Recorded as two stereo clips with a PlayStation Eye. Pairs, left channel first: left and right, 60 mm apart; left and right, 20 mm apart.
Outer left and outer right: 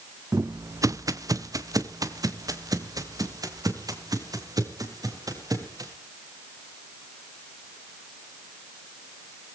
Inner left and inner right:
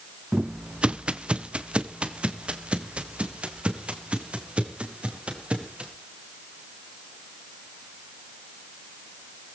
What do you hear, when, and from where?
0.3 s footsteps: 50° right (ahead or behind), 0.6 m; by 5.9 s 80° right, 5 m